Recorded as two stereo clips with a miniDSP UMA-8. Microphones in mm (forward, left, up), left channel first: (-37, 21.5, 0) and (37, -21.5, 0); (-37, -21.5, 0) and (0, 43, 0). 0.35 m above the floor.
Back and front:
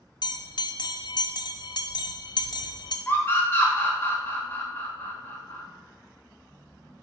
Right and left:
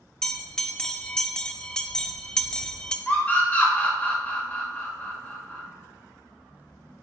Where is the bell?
160° left, 0.6 m.